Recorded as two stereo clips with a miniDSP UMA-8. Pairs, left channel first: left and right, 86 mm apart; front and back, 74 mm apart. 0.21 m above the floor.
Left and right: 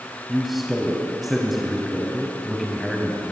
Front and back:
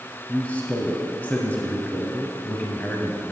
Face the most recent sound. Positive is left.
turn(degrees=-5)